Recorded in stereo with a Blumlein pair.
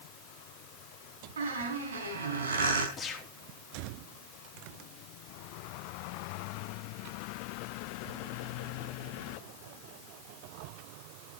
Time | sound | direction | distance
1.4 | a squeak | 70° right | 4.5 m
3.0 | a gunshot | 15° left | 3 m